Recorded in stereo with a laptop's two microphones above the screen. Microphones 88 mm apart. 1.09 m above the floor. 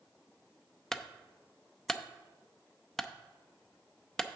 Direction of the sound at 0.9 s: 5° left (ahead or behind).